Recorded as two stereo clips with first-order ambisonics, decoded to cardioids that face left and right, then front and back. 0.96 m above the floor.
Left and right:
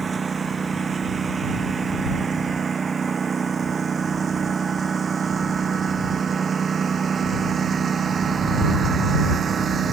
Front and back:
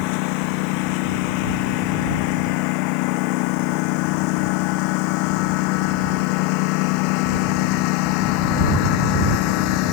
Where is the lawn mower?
15° right; by 9.9 s 20° right.